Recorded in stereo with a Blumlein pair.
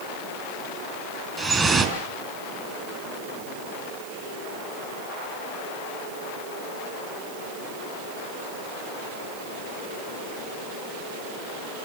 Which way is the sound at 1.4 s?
10° right.